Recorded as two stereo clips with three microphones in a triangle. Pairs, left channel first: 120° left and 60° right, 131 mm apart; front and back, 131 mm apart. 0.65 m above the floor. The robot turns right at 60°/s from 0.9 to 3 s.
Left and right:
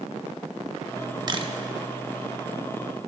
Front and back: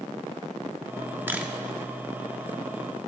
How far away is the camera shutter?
About 0.8 m.